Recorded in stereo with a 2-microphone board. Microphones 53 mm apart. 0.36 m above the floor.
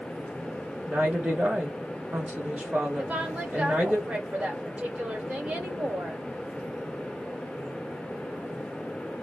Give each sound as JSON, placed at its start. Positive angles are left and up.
{"t": 0.9, "sound": "a woman speaking", "side_deg": -20, "distance_m": 0.9}
{"t": 3.0, "sound": "a woman speaking", "side_deg": -25, "distance_m": 1.4}